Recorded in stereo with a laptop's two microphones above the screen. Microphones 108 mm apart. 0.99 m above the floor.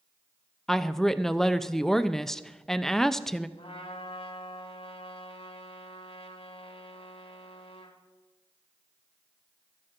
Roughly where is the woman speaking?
Centre.